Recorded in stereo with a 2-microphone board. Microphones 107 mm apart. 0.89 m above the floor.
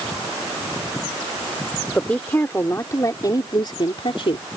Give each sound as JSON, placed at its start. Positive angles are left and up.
{"t": 1.9, "sound": "a woman speaking", "side_deg": 10}